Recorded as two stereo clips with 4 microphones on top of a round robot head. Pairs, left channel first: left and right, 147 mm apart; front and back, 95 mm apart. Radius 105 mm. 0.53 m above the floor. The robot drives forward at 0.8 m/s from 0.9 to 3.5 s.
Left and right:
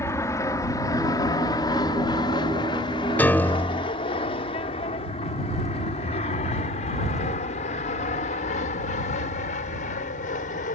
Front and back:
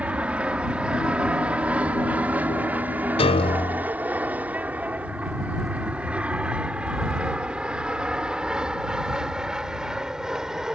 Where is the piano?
10° left; by 3.9 s 15° left.